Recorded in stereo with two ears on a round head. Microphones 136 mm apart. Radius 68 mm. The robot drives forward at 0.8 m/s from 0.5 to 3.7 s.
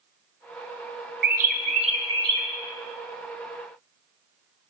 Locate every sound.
1.2 s a bird: 75° right (ahead or behind), 0.7 m; by 2.5 s 30° right (ahead or behind), 1.3 m